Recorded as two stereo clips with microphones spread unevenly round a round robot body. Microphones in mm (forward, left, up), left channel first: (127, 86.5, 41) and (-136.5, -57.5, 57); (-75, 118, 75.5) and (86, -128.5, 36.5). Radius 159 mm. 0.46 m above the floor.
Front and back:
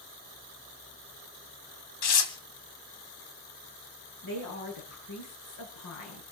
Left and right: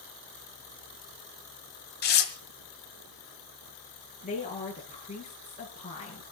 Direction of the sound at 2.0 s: 65° left.